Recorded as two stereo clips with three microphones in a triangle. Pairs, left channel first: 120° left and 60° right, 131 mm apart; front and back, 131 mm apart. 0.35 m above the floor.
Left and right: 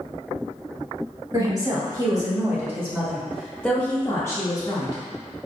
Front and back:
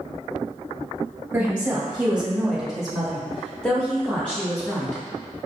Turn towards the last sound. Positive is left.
turn(degrees=75)